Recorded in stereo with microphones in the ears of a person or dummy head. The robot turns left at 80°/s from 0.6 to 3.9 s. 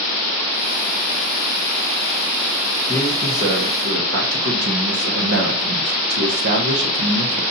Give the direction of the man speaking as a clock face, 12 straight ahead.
12 o'clock.